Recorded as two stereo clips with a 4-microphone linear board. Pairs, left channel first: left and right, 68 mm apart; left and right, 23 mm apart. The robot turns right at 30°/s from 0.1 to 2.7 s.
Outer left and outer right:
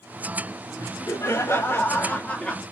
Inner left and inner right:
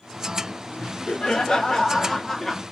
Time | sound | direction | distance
0.8 | laughter | 110° left | 0.8 m